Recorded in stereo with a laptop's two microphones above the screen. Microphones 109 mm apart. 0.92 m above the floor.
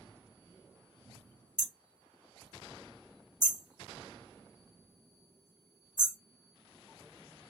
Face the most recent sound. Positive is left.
turn(degrees=-35)  # may be behind; listen again after turning